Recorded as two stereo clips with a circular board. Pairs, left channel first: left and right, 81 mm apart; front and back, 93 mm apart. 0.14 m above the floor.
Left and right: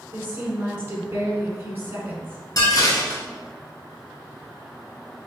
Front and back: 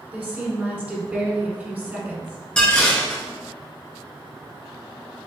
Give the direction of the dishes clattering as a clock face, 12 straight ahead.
9 o'clock.